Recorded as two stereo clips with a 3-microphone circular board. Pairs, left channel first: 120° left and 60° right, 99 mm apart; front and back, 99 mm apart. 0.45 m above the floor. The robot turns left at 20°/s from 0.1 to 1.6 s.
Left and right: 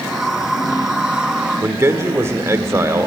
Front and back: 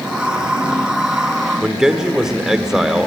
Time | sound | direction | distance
1.6 | a man speaking | 100° right | 1.2 m